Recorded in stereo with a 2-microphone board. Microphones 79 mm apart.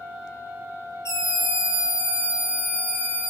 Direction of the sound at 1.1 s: 40° left (ahead or behind).